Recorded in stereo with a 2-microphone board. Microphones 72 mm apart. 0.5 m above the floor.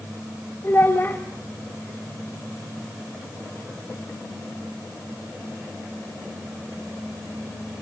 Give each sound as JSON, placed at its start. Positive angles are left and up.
{"t": 0.6, "sound": "a child speaking", "side_deg": 30, "distance_m": 1.2}